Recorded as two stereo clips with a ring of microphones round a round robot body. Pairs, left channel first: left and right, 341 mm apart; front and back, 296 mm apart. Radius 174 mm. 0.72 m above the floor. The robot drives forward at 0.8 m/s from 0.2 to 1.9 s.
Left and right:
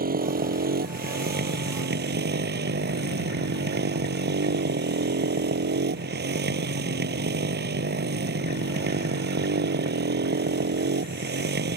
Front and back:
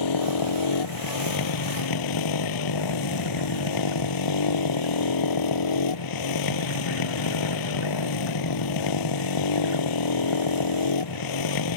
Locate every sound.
0.0 s a motorcycle: 25° right; by 11.8 s 30° right